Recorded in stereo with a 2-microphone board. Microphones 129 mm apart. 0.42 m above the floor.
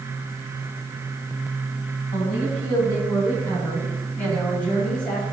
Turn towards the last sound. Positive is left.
turn(degrees=5)  # may be behind; listen again after turning